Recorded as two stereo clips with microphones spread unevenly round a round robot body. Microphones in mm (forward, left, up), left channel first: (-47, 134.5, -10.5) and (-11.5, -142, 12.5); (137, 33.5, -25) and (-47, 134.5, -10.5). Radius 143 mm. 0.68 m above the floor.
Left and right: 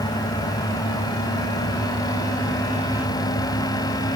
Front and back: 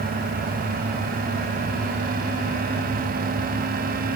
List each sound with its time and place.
Only background noise.